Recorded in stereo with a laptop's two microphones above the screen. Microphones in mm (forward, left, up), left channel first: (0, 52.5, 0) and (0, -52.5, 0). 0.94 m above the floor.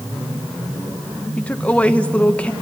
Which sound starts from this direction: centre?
A woman speaking, at 1.4 s.